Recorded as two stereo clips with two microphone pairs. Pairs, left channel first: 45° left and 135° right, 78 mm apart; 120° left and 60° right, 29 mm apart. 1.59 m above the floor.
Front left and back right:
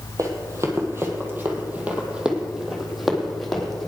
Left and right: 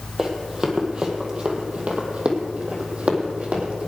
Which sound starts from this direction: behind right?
Running footsteps, at 0.2 s.